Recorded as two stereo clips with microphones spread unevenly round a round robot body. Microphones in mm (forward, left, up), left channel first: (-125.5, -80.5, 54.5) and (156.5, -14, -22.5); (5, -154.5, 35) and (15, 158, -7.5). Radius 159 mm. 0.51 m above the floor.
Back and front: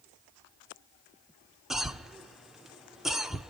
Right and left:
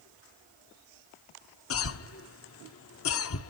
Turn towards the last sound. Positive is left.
turn(degrees=-60)